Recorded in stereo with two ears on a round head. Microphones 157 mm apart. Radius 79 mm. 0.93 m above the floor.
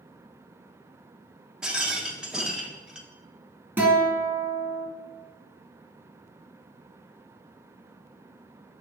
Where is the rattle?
5° right (ahead or behind), 0.7 m.